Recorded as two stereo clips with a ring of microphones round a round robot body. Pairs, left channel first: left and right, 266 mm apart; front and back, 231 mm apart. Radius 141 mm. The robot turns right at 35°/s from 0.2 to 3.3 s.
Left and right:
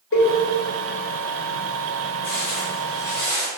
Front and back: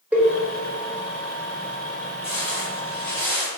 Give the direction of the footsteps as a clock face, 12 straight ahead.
10 o'clock.